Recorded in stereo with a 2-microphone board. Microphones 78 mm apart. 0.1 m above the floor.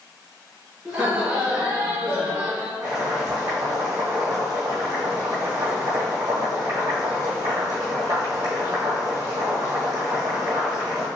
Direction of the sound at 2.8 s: 50° right (ahead or behind).